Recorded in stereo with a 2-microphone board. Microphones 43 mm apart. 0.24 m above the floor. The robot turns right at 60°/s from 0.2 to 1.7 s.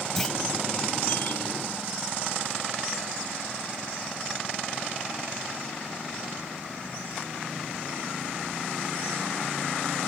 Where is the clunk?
5° left (ahead or behind); by 0.4 s 10° left (ahead or behind).